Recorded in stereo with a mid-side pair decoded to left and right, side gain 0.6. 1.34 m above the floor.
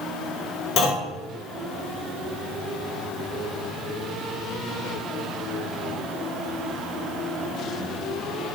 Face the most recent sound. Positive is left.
turn(degrees=70)